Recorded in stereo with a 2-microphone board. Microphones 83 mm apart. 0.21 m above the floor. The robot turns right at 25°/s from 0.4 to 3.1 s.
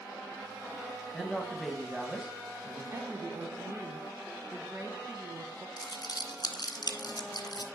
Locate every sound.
1.1 s a woman speaking: 175° left, 1.5 m; by 2.8 s 145° right, 1.5 m
2.9 s a woman speaking: 40° right (ahead or behind), 1.3 m
5.8 s crumpling: 60° left (ahead or behind), 1.1 m